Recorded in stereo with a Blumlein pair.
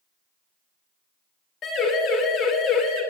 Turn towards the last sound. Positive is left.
turn(degrees=35)